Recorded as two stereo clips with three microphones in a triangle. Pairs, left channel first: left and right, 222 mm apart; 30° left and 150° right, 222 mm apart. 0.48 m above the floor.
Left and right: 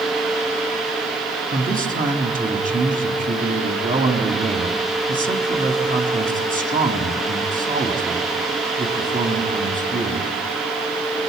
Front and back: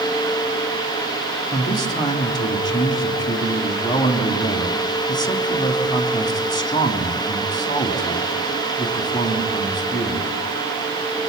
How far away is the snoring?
I don't hear snoring.